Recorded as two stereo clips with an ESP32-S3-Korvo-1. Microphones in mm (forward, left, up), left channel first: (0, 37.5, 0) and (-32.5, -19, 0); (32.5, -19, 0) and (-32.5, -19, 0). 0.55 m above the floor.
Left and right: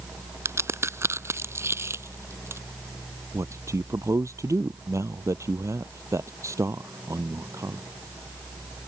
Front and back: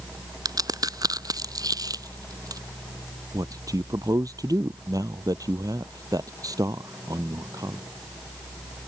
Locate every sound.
0.5 s a crack: 165° right
3.3 s a man speaking: 160° right